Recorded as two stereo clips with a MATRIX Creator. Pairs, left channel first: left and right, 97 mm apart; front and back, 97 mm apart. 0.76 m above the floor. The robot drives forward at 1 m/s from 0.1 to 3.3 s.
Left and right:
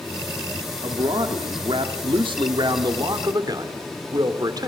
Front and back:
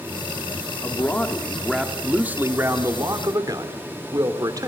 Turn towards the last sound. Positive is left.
turn(degrees=-135)